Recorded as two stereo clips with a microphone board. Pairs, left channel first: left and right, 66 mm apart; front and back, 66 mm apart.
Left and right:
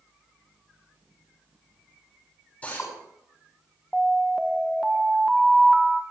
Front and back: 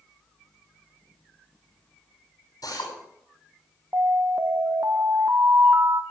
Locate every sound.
2.6 s a drill: 20° left, 10 m
3.9 s an alarm: 175° right, 1.2 m